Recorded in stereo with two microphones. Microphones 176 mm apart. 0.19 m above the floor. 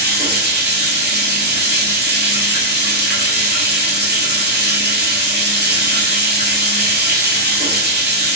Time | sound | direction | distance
0.0 | running water | 65° right (ahead or behind) | 1.3 m